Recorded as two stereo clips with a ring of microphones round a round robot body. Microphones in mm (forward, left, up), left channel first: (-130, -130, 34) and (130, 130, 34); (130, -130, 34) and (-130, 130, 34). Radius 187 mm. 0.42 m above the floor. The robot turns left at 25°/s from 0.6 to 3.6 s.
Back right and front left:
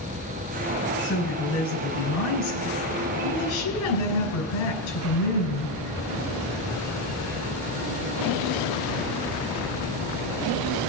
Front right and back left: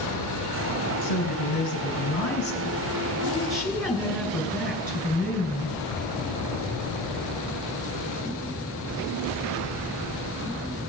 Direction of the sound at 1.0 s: 70° right.